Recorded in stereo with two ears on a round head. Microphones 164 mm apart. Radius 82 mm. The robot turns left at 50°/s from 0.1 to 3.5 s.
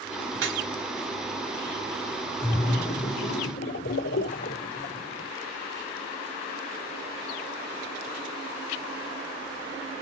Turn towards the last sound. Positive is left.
turn(degrees=75)